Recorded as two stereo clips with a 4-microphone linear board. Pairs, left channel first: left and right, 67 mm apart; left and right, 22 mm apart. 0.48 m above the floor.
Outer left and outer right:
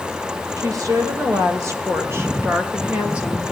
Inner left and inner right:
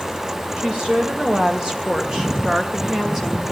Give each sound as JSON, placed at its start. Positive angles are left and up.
{"t": 0.6, "sound": "a woman speaking", "side_deg": -55, "distance_m": 3.0}